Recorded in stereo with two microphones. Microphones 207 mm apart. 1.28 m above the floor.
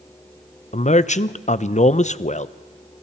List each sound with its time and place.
0.7 s a man speaking: 35° left (ahead or behind), 0.6 m